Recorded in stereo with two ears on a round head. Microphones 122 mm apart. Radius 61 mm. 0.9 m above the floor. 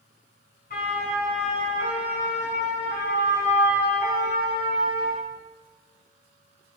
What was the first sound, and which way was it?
A siren, 70° left (ahead or behind).